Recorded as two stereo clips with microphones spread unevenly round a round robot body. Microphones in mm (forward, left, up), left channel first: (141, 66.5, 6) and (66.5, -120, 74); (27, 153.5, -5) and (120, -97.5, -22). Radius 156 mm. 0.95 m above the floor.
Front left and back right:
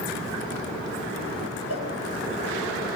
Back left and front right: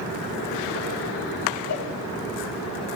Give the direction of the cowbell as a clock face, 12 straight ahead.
9 o'clock.